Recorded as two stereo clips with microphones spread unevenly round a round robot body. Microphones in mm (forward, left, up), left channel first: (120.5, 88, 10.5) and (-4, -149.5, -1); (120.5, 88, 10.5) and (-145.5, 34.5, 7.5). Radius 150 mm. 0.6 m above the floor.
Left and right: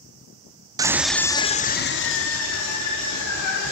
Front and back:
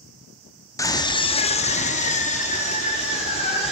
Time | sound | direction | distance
0.8 | a scream | 60° right | 0.6 m